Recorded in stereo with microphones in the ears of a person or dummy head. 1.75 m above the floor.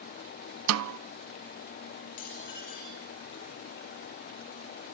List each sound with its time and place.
0.7 s a snare drum: 90° right, 0.5 m
2.2 s dishes clattering: 45° left (ahead or behind), 5.5 m